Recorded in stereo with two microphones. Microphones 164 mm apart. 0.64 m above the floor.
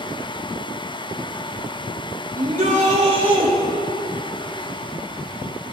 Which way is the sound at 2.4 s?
55° right (ahead or behind).